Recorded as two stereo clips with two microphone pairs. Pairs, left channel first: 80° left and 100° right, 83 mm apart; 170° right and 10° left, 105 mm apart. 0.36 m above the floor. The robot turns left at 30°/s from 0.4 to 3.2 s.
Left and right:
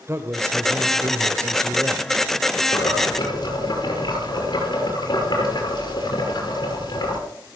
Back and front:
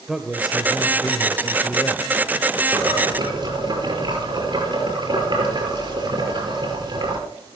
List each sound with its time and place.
0.1 s a man speaking: 75° right, 1.1 m; by 2.2 s 130° right, 1.1 m
2.7 s boiling: 65° left, 6 m; by 7.2 s 50° left, 6 m